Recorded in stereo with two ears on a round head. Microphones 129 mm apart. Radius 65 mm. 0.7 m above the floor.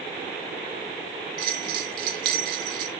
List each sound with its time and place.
1.4 s a bell: 75° right (ahead or behind), 1.8 m